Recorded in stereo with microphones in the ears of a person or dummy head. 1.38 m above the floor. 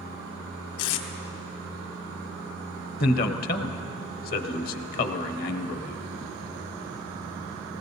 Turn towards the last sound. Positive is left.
turn(degrees=55)  # may be behind; listen again after turning